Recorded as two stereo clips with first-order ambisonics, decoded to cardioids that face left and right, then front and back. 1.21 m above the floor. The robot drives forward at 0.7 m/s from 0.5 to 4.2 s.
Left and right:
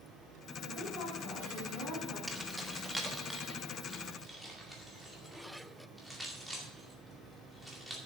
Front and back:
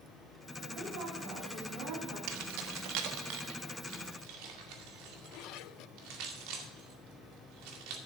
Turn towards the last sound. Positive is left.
turn(degrees=180)